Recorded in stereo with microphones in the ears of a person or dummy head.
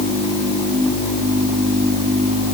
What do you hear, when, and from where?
Only background noise.